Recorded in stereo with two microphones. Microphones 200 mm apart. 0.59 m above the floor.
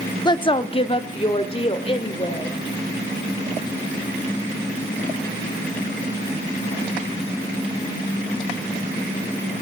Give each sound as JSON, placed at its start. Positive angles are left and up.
{"t": 0.2, "sound": "a woman speaking", "side_deg": 20, "distance_m": 0.6}